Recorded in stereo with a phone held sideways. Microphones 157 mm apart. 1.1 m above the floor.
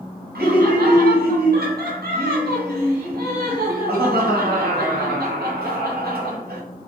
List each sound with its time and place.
0.3 s laughter: 80° right, 1.1 m